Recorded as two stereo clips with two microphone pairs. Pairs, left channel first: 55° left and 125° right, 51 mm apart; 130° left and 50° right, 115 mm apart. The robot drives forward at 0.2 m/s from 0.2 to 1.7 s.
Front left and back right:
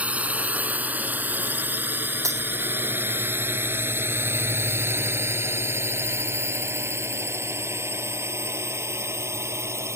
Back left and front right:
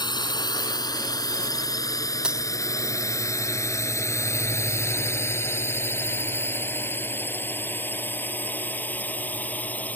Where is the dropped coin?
130° right.